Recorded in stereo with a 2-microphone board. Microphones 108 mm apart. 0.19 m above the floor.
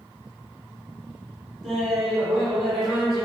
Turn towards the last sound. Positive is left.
turn(degrees=5)  # may be behind; listen again after turning